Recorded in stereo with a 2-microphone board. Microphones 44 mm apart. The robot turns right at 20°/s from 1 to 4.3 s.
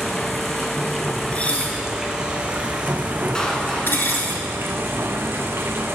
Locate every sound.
0.0 s running water: 175° left, 1.0 m; by 6.0 s 120° right, 1.0 m
1.3 s dishes clattering: 25° left (ahead or behind), 1.3 m; by 4.3 s 55° left (ahead or behind), 1.3 m
3.4 s a clap: 15° left (ahead or behind), 1.3 m; by 4.3 s 5° left (ahead or behind), 1.3 m